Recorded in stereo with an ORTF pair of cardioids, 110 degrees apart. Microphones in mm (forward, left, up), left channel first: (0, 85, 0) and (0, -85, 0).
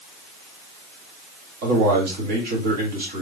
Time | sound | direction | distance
1.6 | a man speaking | 60° right | 2.5 m